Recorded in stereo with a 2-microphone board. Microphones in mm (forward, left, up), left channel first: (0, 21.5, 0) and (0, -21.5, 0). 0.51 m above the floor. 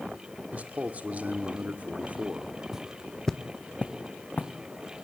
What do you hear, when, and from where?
0.5 s a man speaking: 35° right (ahead or behind), 1.6 m
2.7 s footsteps: 15° right (ahead or behind), 0.9 m; by 4.5 s 40° left (ahead or behind), 2 m